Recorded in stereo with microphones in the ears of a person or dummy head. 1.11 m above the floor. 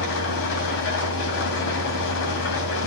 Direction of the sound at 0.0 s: 55° left (ahead or behind).